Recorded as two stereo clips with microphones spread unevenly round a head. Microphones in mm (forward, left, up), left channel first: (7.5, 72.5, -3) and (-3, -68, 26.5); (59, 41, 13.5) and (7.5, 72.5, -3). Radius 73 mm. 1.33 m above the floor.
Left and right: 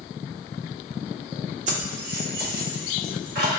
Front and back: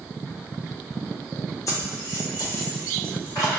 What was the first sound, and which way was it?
Keys jangling, 70° right.